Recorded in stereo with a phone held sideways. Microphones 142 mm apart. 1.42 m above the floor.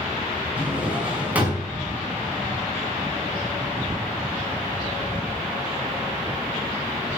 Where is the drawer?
10° right (ahead or behind), 5.5 m.